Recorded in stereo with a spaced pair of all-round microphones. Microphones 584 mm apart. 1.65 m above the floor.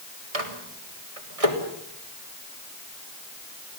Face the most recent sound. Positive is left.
turn(degrees=-75)  # may be behind; listen again after turning